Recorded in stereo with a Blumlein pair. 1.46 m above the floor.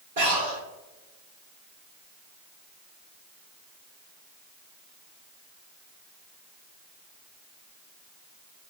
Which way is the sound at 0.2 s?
60° right.